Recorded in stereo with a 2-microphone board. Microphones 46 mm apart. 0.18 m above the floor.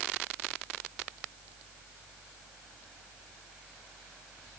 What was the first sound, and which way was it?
Only background noise.